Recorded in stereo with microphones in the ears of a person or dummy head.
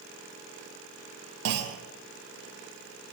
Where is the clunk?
65° right (ahead or behind), 0.6 m.